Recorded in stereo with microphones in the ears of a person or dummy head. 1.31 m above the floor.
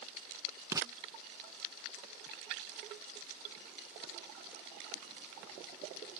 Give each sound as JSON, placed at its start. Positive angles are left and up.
{"t": 0.7, "sound": "writing", "side_deg": -20}